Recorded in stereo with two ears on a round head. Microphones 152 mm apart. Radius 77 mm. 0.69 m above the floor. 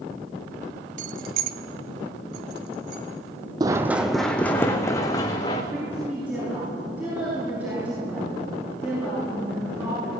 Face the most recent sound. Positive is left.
turn(degrees=-10)  # may be behind; listen again after turning